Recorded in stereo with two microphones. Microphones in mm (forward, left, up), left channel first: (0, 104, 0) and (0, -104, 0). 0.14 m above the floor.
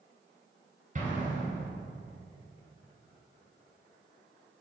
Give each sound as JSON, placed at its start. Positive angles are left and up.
{"t": 0.9, "sound": "an explosion", "side_deg": -40, "distance_m": 2.0}